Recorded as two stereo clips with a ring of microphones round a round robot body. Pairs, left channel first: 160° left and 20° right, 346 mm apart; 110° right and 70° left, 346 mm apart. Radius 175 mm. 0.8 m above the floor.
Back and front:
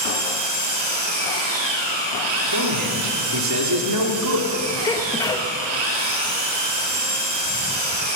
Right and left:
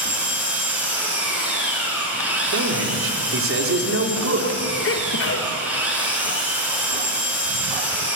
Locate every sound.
0.0 s an engine running: 20° right, 5 m
2.5 s a man speaking: 15° left, 3 m
4.8 s a sneeze: 130° right, 1.1 m